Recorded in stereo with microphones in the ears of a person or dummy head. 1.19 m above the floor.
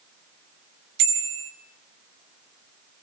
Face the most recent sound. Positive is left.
turn(degrees=-65)  # may be behind; listen again after turning